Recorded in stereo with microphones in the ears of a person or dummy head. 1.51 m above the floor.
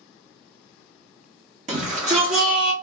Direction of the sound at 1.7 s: 25° right (ahead or behind).